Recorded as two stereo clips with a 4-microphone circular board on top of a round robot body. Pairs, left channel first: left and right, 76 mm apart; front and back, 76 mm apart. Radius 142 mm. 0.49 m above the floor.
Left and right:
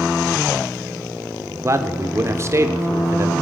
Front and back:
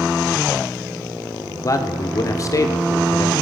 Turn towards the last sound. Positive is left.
turn(degrees=-40)